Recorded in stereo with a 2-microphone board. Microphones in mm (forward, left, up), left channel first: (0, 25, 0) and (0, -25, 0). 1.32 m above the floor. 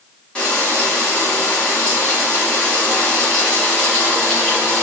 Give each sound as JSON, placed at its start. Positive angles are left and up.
{"t": 0.3, "sound": "frying", "side_deg": 20, "distance_m": 1.5}